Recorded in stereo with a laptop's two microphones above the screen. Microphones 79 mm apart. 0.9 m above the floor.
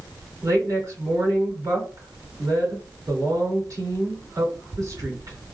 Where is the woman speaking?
50° right (ahead or behind), 2 m.